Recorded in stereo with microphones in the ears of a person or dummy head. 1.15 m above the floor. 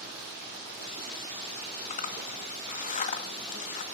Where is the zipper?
40° left (ahead or behind), 1.5 m.